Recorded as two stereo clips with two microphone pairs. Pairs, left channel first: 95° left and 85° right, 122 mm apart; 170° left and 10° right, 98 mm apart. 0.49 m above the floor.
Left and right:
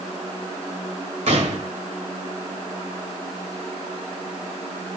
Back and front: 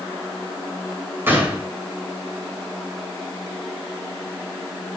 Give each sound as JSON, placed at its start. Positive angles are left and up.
{"t": 1.3, "sound": "a gunshot", "azimuth_deg": -75, "distance_m": 1.8}